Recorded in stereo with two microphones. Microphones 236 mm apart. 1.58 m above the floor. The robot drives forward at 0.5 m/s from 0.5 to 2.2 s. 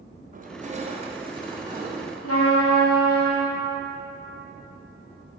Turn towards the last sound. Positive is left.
turn(degrees=80)